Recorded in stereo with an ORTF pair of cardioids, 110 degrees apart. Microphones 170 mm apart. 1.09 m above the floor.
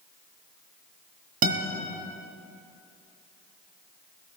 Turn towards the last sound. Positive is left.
turn(degrees=-60)